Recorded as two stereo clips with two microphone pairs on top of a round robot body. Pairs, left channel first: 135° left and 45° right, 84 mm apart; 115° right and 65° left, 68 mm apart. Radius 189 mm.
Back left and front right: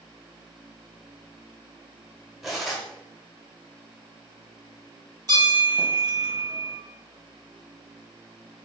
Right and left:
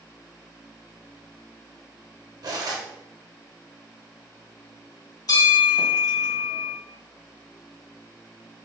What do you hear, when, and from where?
2.4 s cutlery clinking: 40° left, 1.3 m
5.3 s a bell: 90° right, 1.7 m